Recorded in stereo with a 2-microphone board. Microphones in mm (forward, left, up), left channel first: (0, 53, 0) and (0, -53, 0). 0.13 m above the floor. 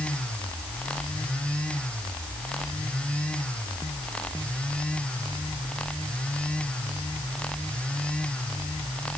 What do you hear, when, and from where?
Only background noise.